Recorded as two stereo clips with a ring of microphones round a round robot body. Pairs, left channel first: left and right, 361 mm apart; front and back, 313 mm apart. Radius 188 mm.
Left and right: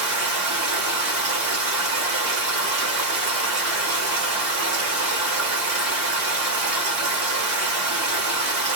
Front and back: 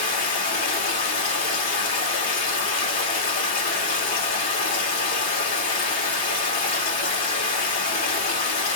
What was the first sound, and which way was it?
Running water, 60° right.